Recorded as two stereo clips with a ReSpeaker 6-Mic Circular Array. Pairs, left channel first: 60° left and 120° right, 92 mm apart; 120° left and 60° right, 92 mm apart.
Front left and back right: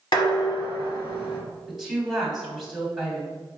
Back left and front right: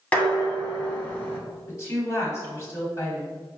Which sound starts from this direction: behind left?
A woman speaking, at 1.7 s.